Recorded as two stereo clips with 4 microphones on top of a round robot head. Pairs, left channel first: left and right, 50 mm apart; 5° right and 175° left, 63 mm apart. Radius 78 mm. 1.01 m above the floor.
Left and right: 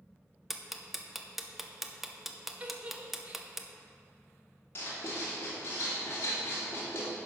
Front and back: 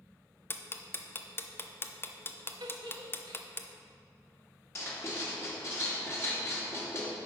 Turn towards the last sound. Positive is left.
turn(degrees=45)